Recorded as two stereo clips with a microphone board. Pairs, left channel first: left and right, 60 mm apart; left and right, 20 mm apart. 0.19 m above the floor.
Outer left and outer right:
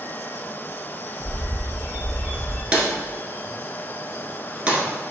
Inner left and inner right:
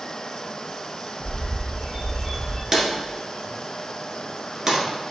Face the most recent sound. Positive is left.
turn(degrees=-20)  # may be behind; listen again after turning